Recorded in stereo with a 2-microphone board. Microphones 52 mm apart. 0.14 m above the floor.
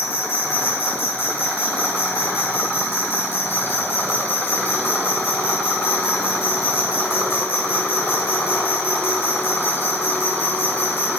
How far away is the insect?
About 1.2 m.